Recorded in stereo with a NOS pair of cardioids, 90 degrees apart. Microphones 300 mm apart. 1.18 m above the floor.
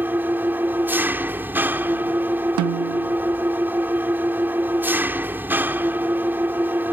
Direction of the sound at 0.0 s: 5° right.